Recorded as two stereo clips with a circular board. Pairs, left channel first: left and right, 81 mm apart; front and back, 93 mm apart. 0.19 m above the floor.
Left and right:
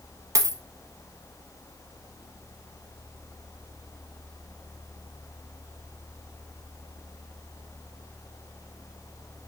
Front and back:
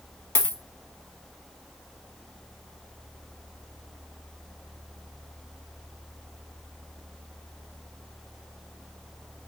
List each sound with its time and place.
0.3 s a dropped coin: 55° right, 0.5 m